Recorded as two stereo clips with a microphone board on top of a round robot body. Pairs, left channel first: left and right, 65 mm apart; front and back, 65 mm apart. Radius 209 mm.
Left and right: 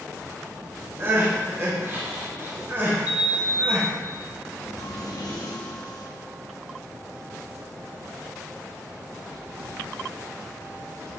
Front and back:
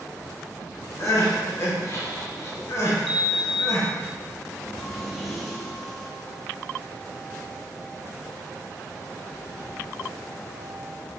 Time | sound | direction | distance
1.0 | crying | 35° right | 1.9 m
3.1 | a sliding door | 90° left | 1.1 m